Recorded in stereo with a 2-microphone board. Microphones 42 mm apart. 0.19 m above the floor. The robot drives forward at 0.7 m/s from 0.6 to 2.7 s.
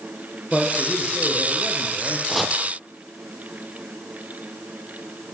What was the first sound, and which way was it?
A man speaking, 20° left (ahead or behind).